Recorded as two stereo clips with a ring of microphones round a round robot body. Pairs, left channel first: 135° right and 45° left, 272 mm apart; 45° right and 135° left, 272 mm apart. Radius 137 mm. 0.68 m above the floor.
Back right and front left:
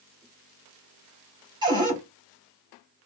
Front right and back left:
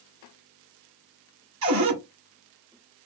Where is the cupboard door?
120° left, 2.0 m.